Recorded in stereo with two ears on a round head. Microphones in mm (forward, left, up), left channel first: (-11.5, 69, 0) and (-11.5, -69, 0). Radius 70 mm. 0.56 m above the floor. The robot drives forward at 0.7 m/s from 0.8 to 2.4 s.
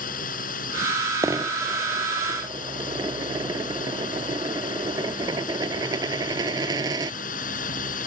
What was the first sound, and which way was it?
A drone, 60° left (ahead or behind).